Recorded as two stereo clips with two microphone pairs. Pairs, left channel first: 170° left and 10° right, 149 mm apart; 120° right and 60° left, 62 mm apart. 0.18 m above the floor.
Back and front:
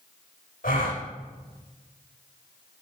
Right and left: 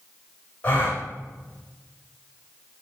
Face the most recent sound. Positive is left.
turn(degrees=175)